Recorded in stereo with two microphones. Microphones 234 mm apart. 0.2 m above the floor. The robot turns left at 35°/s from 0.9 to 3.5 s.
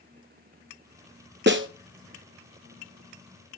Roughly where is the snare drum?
Right.